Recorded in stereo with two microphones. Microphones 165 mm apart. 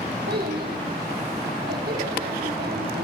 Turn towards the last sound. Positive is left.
turn(degrees=-65)  # may be behind; listen again after turning